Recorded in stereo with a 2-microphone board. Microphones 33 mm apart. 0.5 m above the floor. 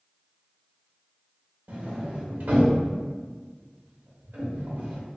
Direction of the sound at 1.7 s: 65° right (ahead or behind).